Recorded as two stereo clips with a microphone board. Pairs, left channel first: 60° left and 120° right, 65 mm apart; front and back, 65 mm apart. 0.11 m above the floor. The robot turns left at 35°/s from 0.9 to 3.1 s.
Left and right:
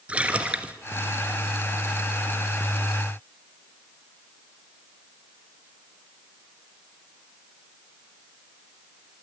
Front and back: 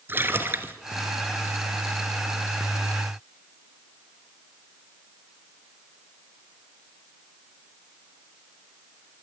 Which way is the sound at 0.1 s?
175° right.